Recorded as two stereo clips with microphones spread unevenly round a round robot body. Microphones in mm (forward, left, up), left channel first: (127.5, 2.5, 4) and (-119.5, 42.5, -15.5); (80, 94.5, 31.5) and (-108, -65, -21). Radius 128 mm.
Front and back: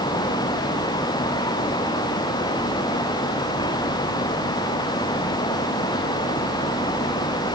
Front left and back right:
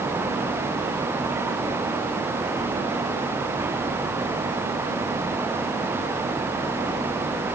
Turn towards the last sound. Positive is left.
No sound to turn to.